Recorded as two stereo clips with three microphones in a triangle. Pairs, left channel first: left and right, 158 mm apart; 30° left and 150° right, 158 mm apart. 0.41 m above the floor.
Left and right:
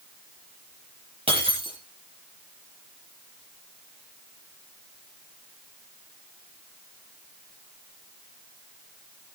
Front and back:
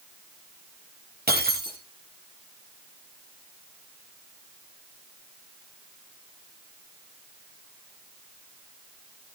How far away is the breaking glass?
About 6 m.